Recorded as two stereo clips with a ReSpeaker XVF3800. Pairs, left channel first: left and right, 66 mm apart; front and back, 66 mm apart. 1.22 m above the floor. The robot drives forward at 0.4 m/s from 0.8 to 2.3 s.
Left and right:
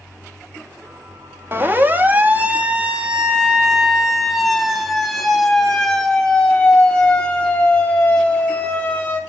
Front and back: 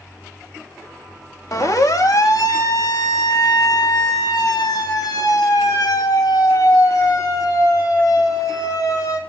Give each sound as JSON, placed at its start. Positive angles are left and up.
{"t": 1.5, "sound": "a siren", "azimuth_deg": -35, "distance_m": 3.0}